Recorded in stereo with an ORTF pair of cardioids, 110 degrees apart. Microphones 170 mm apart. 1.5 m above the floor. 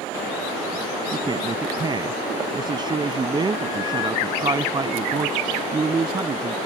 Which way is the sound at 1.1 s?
25° right.